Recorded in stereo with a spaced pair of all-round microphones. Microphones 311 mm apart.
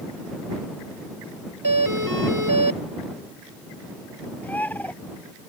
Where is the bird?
5° left (ahead or behind).